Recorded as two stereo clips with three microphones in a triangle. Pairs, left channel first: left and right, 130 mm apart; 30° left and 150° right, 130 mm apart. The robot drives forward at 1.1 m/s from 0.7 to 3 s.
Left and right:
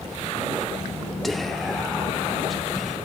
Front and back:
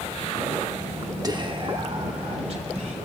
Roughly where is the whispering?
Behind.